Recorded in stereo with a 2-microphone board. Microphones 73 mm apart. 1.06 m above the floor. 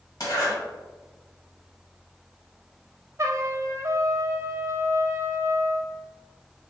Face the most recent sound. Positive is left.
turn(degrees=-40)  # may be behind; listen again after turning